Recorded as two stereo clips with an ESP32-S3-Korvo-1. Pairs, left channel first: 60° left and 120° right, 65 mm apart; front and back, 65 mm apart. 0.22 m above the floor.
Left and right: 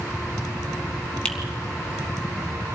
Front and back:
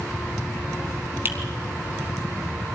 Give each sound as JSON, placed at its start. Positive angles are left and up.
{"t": 1.2, "sound": "a finger snap", "azimuth_deg": 130, "distance_m": 2.5}